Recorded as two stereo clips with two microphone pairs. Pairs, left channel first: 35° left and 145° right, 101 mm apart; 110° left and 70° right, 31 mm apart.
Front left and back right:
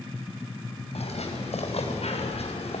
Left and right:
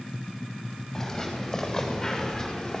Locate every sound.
0.9 s footsteps: 30° left, 6.5 m